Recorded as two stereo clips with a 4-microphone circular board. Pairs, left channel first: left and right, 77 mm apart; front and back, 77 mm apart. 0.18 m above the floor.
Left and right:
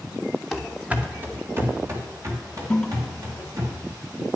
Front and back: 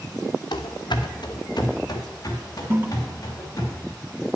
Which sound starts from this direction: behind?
A toilet flushing, at 2.7 s.